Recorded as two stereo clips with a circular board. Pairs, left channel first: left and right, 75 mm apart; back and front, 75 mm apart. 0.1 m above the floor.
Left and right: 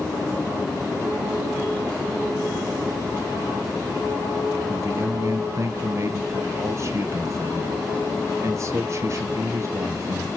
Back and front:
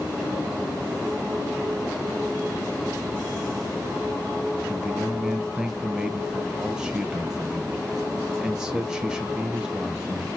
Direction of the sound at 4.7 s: 75° right.